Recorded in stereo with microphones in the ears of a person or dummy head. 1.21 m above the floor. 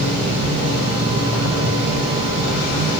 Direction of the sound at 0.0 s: 15° right (ahead or behind).